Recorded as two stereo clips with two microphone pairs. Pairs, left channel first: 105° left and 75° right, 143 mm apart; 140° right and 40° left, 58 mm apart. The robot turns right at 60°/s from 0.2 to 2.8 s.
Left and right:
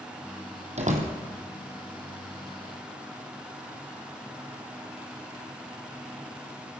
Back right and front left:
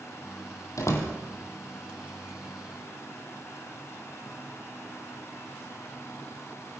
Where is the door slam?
115° right, 4 m; by 1.1 s 95° right, 4 m.